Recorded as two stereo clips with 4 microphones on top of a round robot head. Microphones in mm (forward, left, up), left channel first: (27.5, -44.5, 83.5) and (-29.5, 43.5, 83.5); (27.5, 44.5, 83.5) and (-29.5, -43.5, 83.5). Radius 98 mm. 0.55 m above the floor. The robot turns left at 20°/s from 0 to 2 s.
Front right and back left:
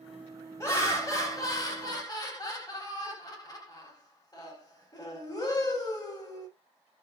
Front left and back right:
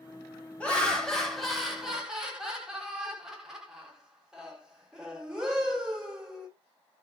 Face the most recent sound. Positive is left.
turn(degrees=-45)